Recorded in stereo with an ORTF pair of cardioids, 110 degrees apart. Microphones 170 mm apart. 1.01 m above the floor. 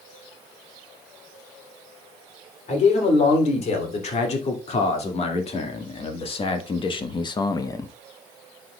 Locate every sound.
2.7 s a man speaking: 45° left, 3 m; by 7.9 s 20° left, 0.7 m